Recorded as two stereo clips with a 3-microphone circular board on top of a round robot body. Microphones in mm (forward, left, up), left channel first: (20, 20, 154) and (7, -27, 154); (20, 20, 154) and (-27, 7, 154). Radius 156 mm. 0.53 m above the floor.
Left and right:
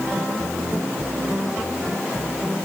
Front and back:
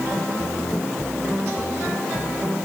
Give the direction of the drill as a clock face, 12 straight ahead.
I don't hear a drill.